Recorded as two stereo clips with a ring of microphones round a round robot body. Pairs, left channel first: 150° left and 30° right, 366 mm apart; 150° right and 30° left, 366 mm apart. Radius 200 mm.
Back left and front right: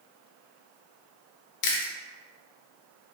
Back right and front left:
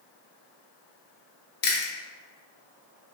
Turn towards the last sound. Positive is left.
turn(degrees=155)